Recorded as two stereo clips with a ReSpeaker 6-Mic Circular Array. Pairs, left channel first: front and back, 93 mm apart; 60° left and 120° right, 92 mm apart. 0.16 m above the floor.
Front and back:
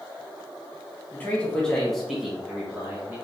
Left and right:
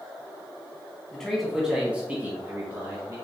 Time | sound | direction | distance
1.1 | a man speaking | 10° right | 1.3 m